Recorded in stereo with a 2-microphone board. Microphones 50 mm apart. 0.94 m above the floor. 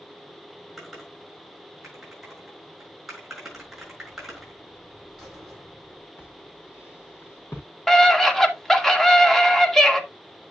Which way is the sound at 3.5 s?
15° right (ahead or behind).